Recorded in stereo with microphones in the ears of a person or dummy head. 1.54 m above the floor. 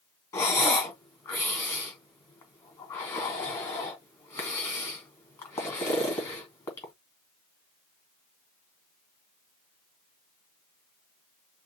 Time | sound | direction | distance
0.3 | breathing | 15° left (ahead or behind) | 2.5 m